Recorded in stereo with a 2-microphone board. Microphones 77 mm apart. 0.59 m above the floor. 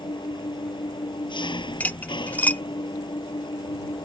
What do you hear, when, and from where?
0.0 s an engine running: 80° left
1.8 s cutlery clinking: 20° left (ahead or behind)